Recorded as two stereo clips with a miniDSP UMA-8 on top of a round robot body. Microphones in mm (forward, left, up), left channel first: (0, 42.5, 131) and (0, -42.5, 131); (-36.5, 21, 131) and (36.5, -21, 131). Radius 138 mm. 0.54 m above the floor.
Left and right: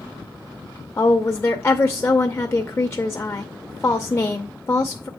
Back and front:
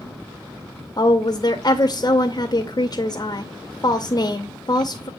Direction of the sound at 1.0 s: 140° left.